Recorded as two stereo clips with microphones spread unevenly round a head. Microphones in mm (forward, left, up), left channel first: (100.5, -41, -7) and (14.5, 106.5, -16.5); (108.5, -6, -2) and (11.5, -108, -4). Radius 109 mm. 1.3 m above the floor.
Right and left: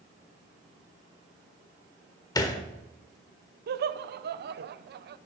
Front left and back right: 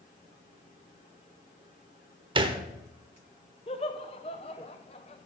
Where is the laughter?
105° left, 0.6 m.